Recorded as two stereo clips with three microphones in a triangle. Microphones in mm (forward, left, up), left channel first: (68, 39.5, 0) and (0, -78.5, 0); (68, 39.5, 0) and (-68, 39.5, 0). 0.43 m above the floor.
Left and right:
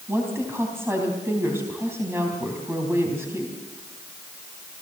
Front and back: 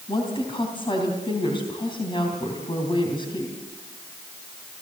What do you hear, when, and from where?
0.1 s a woman speaking: 50° right, 3.5 m